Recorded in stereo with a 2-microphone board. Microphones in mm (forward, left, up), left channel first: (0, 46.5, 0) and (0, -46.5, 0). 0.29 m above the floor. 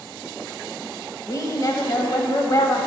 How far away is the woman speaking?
About 1.1 m.